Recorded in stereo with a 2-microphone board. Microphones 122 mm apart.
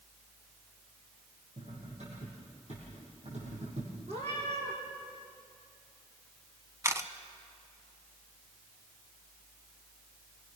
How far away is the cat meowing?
About 6.5 m.